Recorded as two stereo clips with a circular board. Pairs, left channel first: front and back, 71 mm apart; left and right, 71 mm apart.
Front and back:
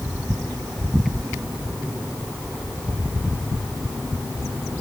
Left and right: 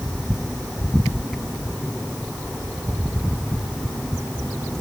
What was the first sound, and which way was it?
Only background noise.